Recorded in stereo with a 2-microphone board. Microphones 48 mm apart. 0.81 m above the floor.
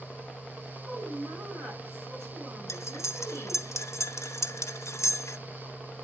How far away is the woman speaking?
About 6 m.